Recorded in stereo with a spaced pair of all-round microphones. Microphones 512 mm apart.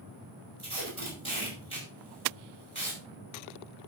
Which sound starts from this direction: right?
Tape being pulled, at 0.6 s.